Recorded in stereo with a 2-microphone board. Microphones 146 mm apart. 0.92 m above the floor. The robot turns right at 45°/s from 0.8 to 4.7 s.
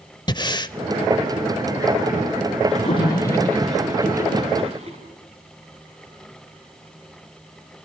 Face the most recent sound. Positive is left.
turn(degrees=-45)  # may be behind; listen again after turning